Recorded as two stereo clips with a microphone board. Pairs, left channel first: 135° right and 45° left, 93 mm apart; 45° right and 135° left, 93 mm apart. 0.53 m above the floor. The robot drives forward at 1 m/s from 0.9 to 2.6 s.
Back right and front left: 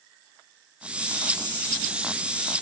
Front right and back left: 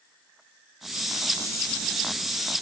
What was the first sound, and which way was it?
Only background noise.